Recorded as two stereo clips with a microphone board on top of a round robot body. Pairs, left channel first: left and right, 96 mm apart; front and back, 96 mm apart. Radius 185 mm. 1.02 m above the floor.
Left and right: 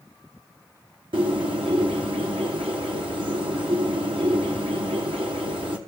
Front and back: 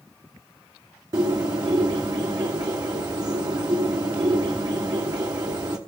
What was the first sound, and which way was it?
A bird, 125° right.